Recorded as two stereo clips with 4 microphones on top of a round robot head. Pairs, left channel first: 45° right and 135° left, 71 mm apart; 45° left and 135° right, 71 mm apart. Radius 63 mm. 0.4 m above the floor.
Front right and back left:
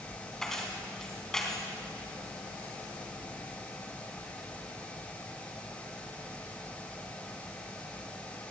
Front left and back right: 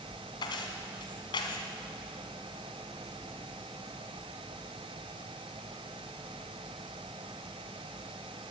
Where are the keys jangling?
35° left, 3 m.